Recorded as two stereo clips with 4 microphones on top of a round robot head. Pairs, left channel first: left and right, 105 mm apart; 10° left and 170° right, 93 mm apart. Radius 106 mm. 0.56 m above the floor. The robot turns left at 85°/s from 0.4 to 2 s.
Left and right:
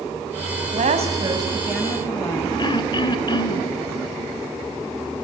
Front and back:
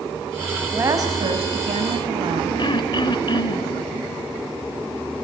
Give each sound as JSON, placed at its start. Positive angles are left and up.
{"t": 0.7, "sound": "a woman speaking", "azimuth_deg": -95, "distance_m": 5.0}
{"t": 2.6, "sound": "throat clearing", "azimuth_deg": 45, "distance_m": 1.9}